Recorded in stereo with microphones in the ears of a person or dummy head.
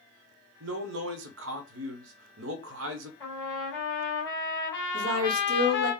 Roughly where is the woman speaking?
Right.